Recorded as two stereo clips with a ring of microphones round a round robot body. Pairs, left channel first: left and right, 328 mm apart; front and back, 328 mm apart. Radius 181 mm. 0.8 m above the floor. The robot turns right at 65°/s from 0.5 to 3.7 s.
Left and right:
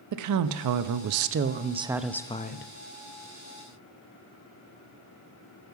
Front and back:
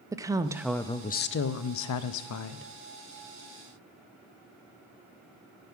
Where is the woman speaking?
100° right, 0.6 m; by 2.7 s 45° left, 0.6 m.